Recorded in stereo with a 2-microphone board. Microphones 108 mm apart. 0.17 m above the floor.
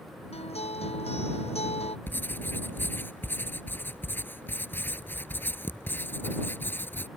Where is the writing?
20° left (ahead or behind).